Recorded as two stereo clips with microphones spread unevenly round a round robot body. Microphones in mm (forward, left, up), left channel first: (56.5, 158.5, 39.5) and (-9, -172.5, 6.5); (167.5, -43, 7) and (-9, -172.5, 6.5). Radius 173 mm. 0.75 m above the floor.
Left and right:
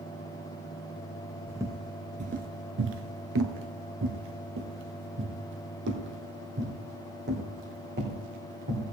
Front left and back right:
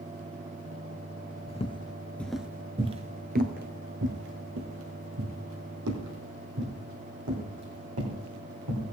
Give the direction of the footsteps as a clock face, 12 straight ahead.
12 o'clock.